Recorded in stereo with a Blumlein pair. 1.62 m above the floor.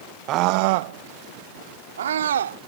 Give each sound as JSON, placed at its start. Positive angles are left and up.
{"t": 0.3, "sound": "a scream", "azimuth_deg": -35}